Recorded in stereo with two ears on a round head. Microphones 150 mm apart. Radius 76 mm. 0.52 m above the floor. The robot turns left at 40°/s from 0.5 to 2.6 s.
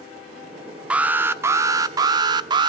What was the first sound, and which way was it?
An alarm, 5° right (ahead or behind).